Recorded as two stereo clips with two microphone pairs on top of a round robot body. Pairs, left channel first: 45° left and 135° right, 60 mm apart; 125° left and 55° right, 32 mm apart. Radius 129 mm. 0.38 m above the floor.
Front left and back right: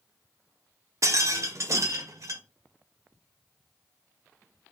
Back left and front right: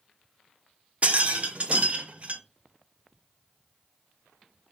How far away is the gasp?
No gasp in this recording.